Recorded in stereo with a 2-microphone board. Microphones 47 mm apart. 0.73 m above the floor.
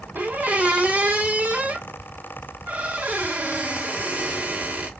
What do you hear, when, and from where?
0.1 s a squeak: 35° right (ahead or behind), 1.1 m